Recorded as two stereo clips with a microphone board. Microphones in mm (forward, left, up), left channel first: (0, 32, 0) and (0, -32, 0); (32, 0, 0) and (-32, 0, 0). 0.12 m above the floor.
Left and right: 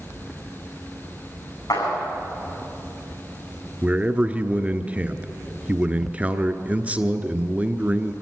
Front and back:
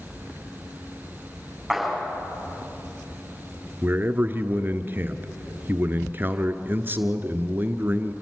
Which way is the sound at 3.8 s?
145° right.